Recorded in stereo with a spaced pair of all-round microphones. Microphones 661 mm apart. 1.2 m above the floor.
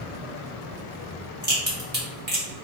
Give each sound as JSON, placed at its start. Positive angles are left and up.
{"t": 1.4, "sound": "a crack", "side_deg": -15, "distance_m": 2.0}